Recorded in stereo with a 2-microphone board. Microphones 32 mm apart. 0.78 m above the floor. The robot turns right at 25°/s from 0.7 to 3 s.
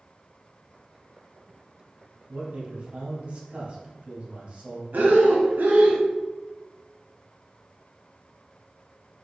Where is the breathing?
75° right (ahead or behind), 0.7 m.